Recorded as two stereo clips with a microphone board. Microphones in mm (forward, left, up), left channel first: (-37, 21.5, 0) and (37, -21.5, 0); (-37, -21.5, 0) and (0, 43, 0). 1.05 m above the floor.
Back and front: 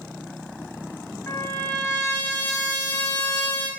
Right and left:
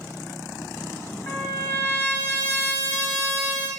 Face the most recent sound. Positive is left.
turn(degrees=-165)